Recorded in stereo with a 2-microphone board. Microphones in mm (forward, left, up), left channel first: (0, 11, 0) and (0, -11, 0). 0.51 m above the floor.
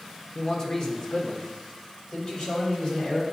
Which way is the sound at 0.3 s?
35° left (ahead or behind).